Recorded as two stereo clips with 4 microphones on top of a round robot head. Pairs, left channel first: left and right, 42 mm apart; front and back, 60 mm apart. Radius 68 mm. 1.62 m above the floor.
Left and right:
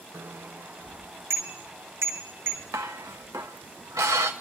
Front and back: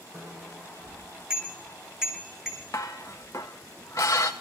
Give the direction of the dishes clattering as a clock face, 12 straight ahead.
2 o'clock.